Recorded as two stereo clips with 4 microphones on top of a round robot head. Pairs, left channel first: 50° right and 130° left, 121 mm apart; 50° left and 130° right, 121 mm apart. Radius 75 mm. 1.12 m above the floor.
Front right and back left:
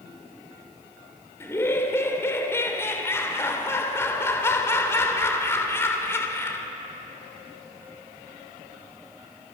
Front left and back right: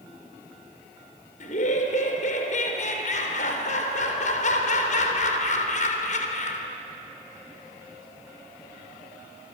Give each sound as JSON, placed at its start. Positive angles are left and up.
{"t": 1.4, "sound": "laughter", "azimuth_deg": 20, "distance_m": 3.5}